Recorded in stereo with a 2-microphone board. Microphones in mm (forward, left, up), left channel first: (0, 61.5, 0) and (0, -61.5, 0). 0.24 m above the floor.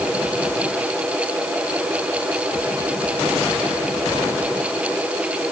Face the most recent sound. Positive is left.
No sound to turn to.